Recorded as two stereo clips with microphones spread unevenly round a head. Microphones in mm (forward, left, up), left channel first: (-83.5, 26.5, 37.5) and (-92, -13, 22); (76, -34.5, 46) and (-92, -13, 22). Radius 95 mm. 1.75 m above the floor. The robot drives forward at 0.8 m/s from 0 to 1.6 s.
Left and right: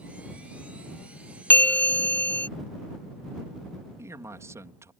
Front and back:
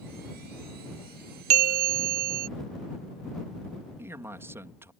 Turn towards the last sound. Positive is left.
turn(degrees=-110)